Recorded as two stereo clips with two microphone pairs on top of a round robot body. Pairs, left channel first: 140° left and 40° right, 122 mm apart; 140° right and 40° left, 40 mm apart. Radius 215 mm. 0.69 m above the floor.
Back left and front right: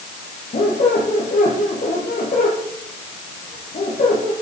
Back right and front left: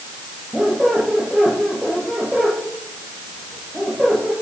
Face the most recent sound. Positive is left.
turn(degrees=125)